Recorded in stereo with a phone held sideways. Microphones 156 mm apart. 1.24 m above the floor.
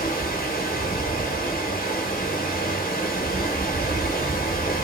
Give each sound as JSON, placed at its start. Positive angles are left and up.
{"t": 0.0, "sound": "running water", "side_deg": 75, "distance_m": 1.0}